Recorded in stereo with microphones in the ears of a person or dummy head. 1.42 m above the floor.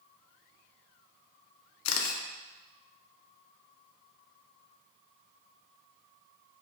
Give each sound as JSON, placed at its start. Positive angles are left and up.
{"t": 1.9, "sound": "a camera shutter", "side_deg": 80, "distance_m": 0.6}